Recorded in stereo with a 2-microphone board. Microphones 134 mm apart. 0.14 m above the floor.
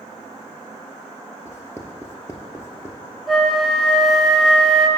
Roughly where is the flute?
Centre.